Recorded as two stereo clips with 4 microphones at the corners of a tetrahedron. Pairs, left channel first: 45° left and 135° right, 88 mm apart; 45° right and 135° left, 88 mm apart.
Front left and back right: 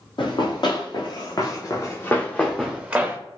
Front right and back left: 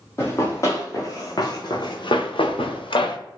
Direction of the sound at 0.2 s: 15° left.